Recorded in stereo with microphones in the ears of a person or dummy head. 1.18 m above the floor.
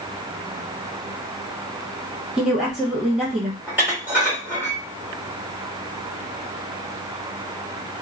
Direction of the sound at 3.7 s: 10° right (ahead or behind).